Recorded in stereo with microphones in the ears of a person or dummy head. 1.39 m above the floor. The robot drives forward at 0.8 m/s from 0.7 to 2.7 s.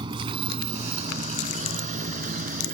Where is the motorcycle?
25° right (ahead or behind); by 2.7 s 45° right (ahead or behind).